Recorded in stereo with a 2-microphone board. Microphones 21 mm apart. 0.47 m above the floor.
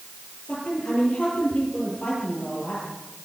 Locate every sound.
0.5 s a woman speaking: 65° left (ahead or behind), 10 m